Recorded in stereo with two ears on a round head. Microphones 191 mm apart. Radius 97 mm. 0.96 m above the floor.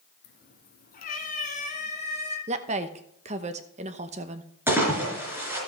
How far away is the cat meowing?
About 1.6 m.